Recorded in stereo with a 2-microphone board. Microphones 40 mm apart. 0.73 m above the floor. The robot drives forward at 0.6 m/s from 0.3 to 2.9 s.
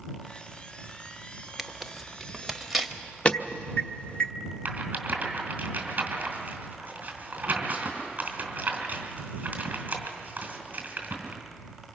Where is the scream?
No scream in this recording.